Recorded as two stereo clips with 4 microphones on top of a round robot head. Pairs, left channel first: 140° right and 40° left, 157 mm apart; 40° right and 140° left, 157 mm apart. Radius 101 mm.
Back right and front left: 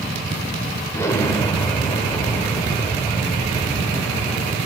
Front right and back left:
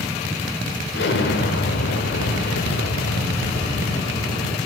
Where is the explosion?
65° right, 1.0 m.